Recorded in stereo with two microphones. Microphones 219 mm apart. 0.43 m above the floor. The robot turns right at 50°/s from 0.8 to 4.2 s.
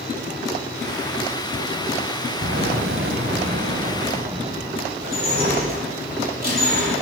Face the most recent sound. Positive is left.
turn(degrees=-45)  # may be behind; listen again after turning